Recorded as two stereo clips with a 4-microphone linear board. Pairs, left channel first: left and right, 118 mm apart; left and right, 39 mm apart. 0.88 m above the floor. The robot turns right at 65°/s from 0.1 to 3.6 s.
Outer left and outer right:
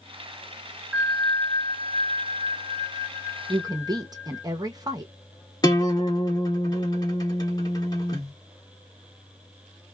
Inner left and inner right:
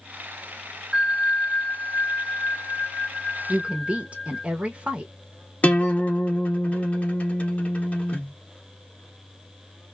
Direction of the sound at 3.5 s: 30° right (ahead or behind).